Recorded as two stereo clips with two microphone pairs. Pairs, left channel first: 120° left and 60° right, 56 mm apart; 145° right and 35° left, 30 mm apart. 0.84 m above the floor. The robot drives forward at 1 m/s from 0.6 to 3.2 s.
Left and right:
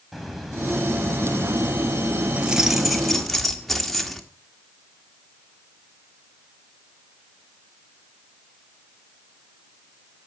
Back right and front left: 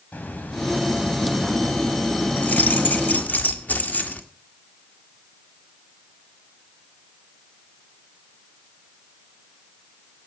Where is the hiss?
150° right, 3.5 m; by 3.4 s 165° right, 6 m.